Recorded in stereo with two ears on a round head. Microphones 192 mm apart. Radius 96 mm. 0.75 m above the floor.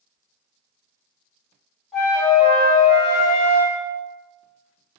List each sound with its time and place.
1.9 s a flute: centre (ahead or behind), 1.6 m